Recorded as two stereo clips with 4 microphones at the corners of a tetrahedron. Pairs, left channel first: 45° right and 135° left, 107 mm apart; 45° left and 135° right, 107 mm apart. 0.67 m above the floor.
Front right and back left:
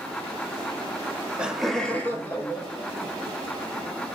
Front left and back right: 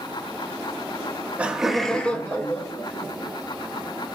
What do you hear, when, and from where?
1.0 s laughter: straight behind, 0.9 m; by 3.4 s 5° right, 1.5 m